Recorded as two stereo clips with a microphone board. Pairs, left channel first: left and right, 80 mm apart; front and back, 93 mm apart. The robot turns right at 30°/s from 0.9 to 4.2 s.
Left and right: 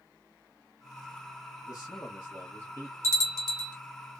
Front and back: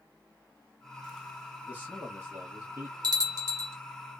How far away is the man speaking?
About 0.9 m.